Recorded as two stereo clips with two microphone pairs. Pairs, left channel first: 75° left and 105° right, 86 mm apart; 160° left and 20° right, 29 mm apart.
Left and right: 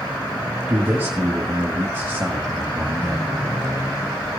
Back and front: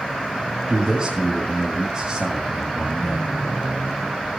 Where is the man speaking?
55° right, 1.7 m.